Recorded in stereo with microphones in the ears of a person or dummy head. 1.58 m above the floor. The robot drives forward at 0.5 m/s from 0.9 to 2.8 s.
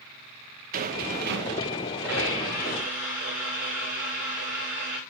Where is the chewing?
I don't hear chewing.